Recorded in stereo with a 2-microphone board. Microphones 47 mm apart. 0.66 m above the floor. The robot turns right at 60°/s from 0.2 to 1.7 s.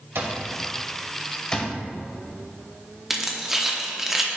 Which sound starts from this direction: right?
An alarm clock, at 0.1 s.